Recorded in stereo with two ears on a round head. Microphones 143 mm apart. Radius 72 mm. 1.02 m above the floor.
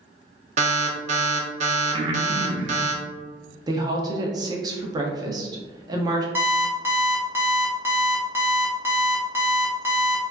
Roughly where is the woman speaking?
Right.